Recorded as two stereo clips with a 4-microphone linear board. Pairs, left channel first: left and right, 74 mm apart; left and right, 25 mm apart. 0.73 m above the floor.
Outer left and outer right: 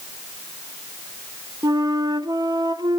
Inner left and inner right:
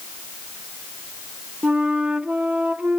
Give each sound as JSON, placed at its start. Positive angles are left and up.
{"t": 1.6, "sound": "a flute", "side_deg": -65, "distance_m": 1.2}